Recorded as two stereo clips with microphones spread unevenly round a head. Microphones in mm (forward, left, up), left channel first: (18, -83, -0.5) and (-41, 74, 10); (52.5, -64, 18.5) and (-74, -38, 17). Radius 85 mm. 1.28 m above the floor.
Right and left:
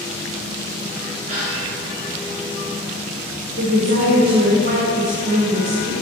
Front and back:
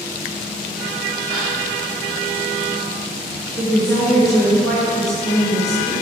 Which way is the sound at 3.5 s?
75° left.